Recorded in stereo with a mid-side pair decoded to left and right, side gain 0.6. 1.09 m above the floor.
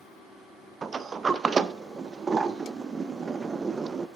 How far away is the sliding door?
About 0.5 m.